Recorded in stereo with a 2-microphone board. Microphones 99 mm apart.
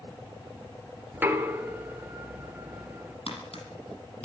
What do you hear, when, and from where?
1.1 s knocking: 20° right (ahead or behind), 2.5 m
3.3 s tapping: 75° left (ahead or behind), 7.5 m